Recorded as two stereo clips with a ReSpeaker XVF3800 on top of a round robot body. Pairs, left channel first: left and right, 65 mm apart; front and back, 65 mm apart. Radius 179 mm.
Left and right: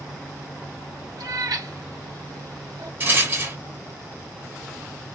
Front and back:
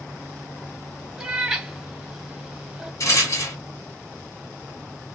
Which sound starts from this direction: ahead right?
A rattle, at 3.0 s.